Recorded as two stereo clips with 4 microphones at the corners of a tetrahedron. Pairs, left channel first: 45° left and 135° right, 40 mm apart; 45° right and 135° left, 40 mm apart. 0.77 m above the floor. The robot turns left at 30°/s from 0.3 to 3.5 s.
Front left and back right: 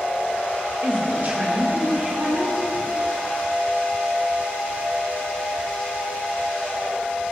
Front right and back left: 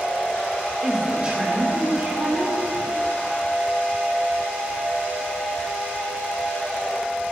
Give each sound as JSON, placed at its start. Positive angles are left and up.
{"t": 0.8, "sound": "a woman speaking", "azimuth_deg": -155, "distance_m": 2.5}